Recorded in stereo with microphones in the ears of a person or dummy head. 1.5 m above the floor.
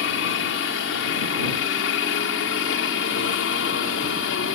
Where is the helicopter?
65° left (ahead or behind); by 4.5 s 70° left (ahead or behind).